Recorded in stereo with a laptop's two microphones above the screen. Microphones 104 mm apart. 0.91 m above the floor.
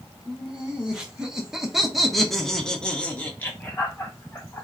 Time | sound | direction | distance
0.3 | laughter | 10° right (ahead or behind) | 1.8 m